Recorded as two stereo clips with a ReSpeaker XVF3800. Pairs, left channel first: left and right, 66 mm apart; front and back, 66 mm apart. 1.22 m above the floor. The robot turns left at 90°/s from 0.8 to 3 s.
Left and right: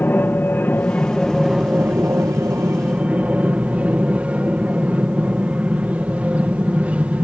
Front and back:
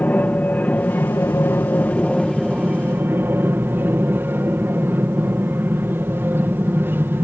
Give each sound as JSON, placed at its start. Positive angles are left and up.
{"t": 0.0, "sound": "an aircraft", "azimuth_deg": 50}